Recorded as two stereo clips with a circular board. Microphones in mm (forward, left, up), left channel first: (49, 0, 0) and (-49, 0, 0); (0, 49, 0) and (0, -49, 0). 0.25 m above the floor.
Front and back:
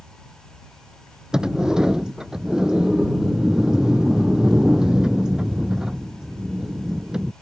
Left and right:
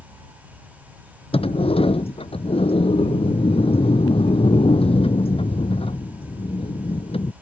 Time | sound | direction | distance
1.3 | a sliding door | 95° left | ?